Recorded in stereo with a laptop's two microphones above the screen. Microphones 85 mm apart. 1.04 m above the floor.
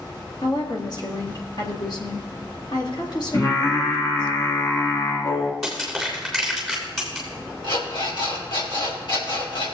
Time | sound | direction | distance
0.4 | a woman speaking | 60° left (ahead or behind) | 2.0 m
3.3 | singing | 35° left (ahead or behind) | 1.3 m
5.6 | crushing | 5° left (ahead or behind) | 3 m
7.6 | an alarm clock | 80° left | 3.5 m